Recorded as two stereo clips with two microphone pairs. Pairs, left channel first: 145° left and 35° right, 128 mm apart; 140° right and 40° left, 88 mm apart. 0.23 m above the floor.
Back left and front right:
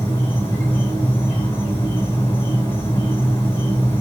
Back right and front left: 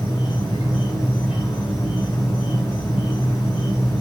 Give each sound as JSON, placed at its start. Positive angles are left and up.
{"t": 0.0, "sound": "an insect", "azimuth_deg": -145, "distance_m": 3.0}